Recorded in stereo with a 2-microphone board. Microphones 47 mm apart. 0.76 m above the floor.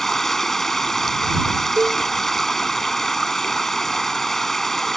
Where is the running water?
5° left (ahead or behind).